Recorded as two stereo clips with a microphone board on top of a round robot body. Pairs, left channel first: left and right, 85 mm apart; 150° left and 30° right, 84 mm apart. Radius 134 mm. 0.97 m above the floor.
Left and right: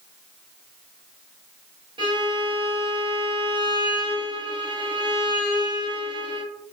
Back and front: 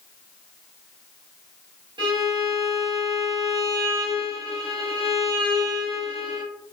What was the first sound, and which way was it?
A violin, 60° right.